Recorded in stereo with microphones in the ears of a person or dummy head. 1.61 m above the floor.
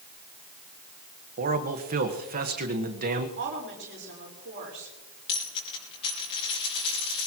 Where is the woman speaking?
55° right (ahead or behind), 4.5 m.